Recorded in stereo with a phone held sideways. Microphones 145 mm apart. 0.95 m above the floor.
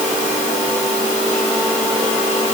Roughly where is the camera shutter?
No camera shutter in this recording.